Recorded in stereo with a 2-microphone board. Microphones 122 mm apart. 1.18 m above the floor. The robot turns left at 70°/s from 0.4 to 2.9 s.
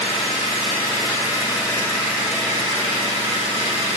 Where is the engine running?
120° left, 2.5 m; by 4.0 s 55° right, 2.5 m.